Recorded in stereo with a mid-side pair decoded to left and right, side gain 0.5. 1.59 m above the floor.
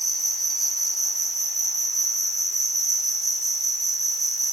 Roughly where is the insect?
Ahead.